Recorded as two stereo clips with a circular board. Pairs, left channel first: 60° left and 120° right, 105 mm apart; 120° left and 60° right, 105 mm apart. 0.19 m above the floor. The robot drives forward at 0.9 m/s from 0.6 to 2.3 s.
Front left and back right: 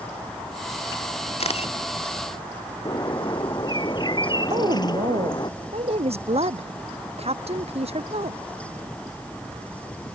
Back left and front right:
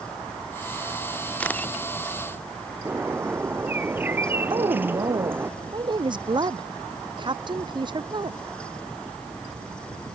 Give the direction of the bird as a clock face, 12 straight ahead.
12 o'clock.